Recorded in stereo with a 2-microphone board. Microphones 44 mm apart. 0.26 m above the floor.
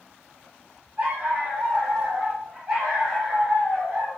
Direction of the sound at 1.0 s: 35° right (ahead or behind).